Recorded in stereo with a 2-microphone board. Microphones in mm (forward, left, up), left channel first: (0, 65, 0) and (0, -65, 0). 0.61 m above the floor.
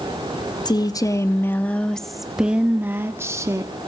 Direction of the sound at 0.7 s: 35° left (ahead or behind).